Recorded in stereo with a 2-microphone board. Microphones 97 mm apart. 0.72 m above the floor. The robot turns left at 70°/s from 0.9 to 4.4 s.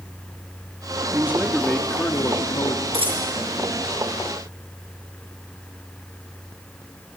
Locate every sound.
1.1 s a man speaking: 150° right, 1.6 m; by 2.8 s 95° left, 1.6 m
2.9 s a dropped coin: 75° right (ahead or behind), 5.5 m; by 3.3 s 50° right (ahead or behind), 5.5 m